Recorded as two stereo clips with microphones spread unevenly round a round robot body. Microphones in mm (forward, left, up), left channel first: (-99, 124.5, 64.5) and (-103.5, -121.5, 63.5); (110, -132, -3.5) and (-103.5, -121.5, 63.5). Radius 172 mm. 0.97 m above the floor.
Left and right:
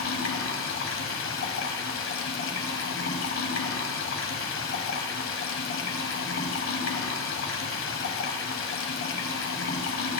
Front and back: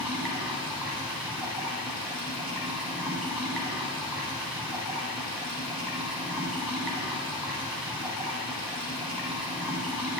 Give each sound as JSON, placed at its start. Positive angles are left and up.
{"t": 0.0, "sound": "running water", "azimuth_deg": 110, "distance_m": 1.2}